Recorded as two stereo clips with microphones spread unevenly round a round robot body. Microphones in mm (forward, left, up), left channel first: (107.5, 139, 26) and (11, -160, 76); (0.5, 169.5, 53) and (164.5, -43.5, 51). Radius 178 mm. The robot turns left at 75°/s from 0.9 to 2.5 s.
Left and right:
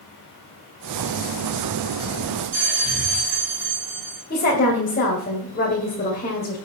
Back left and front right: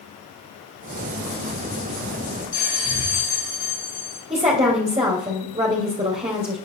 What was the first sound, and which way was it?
A bell, 165° right.